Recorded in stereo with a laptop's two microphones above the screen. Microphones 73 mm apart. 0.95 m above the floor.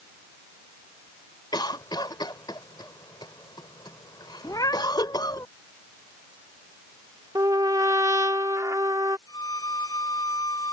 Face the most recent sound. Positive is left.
turn(degrees=65)  # may be behind; listen again after turning